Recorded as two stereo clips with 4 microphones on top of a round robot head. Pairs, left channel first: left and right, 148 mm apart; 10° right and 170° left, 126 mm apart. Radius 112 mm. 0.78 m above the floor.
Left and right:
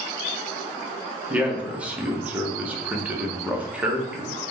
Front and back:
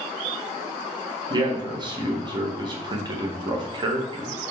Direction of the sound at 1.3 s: 165° right.